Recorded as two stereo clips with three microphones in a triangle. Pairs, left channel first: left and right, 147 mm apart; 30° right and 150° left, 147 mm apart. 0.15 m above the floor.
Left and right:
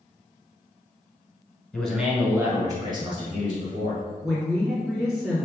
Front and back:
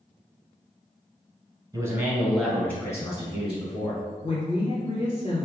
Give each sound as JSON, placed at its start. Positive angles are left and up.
{"t": 1.7, "sound": "a man speaking", "azimuth_deg": 165, "distance_m": 1.1}
{"t": 4.2, "sound": "a woman speaking", "azimuth_deg": 0, "distance_m": 1.9}